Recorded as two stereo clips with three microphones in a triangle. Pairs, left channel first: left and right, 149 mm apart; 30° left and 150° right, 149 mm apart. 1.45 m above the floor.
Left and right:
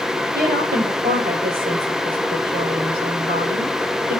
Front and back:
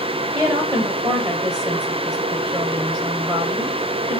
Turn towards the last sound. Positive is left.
turn(degrees=-85)